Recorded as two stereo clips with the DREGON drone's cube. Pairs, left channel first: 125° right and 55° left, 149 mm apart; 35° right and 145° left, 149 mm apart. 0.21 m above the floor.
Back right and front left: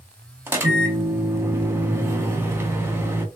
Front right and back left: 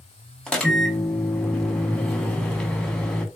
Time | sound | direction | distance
0.5 | a microwave | 40° left | 0.7 m